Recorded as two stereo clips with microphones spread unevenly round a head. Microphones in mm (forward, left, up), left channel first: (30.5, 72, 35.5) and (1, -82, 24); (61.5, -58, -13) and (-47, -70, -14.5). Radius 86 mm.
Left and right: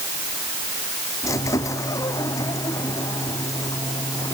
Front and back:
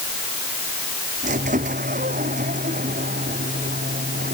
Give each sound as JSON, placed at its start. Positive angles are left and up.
{"t": 1.2, "sound": "a squeak", "azimuth_deg": 150}